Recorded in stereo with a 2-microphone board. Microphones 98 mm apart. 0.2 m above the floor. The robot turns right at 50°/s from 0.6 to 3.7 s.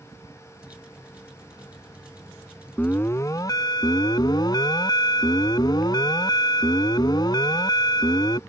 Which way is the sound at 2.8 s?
20° left.